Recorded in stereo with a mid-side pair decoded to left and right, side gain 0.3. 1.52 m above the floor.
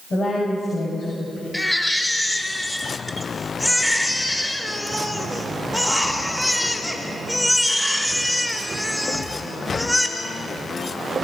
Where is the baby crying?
15° left, 3.5 m.